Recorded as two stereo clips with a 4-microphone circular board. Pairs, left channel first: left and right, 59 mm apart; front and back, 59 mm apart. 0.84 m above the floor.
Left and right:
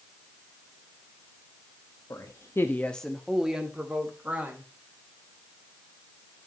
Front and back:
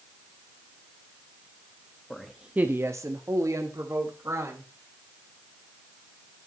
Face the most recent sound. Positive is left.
turn(degrees=-155)